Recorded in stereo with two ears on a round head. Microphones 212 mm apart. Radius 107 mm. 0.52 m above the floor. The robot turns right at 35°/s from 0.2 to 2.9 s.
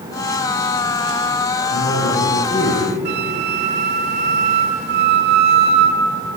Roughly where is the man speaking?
Behind left.